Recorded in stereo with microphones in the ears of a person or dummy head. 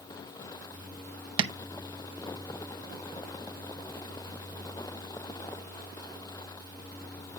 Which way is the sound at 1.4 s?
30° right (ahead or behind).